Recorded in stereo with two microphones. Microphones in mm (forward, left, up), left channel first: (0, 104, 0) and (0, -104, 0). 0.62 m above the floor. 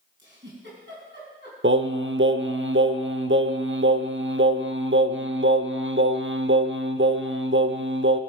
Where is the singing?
65° right (ahead or behind), 0.6 m.